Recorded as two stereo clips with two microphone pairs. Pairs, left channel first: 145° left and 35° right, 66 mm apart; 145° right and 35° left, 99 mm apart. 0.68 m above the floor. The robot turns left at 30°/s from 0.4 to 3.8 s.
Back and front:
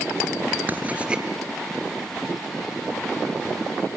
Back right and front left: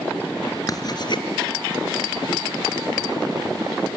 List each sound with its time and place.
0.7 s writing: 95° right, 2 m; by 1.2 s 110° right, 2 m